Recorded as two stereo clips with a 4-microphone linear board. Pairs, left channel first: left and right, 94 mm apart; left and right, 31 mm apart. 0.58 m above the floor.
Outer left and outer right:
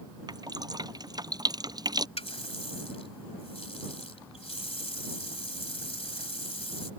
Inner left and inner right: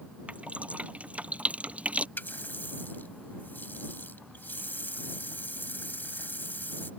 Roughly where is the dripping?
Right.